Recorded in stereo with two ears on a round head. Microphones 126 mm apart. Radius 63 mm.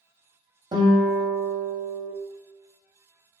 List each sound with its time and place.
0.7 s a guitar: 30° right (ahead or behind), 0.7 m